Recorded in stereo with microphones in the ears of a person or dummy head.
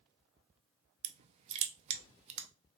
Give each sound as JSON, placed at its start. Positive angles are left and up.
{"t": 1.0, "sound": "crushing", "side_deg": -35, "distance_m": 0.6}